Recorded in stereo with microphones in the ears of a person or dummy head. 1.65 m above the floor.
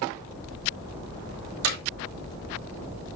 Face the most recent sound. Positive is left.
turn(degrees=-70)  # may be behind; listen again after turning